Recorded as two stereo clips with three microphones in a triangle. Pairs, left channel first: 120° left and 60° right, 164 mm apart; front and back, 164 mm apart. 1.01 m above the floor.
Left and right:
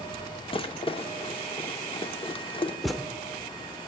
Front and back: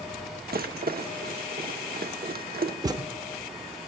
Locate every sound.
0.5 s a rattle: 175° left, 1.0 m
2.8 s a thud: 150° right, 0.7 m